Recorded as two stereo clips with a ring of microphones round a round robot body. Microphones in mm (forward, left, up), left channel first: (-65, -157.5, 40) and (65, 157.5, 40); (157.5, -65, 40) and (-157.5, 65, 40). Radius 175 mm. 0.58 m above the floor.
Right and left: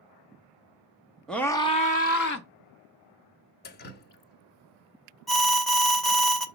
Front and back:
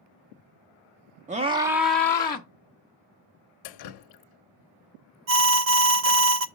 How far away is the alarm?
About 0.8 m.